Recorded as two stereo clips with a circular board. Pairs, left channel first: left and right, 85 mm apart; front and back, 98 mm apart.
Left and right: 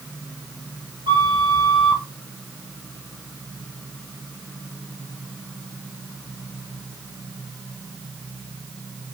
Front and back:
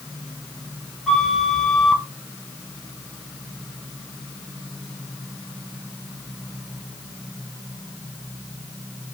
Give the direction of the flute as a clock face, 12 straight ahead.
3 o'clock.